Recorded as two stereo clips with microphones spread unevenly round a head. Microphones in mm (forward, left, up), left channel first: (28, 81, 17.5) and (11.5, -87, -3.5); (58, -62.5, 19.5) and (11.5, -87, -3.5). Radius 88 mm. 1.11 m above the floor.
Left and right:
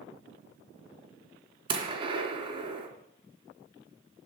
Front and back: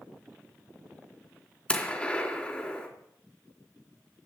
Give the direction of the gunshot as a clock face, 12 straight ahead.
1 o'clock.